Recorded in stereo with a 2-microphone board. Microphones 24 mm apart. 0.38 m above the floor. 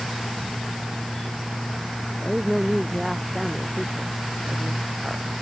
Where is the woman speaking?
5° right (ahead or behind).